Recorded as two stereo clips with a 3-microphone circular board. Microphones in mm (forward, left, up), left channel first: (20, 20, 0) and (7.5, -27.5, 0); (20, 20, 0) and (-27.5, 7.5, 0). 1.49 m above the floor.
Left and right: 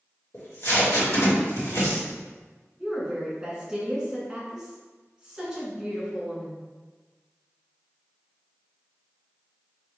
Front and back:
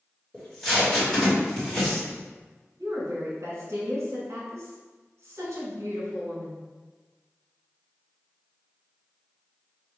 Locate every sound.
0.3 s tape being pulled: 95° left, 1.7 m
2.8 s a woman speaking: 175° left, 1.8 m